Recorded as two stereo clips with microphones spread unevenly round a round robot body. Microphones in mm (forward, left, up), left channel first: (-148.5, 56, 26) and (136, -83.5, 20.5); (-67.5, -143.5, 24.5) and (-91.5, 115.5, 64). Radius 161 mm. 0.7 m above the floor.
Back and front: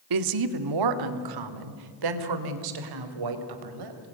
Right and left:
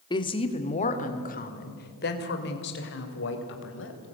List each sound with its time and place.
0.1 s a woman speaking: 15° right, 1.6 m; by 4.0 s 40° right, 3.5 m